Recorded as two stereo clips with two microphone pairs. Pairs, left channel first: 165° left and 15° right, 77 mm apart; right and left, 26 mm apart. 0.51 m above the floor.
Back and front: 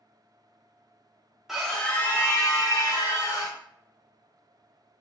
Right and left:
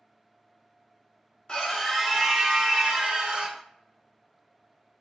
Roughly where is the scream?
Right.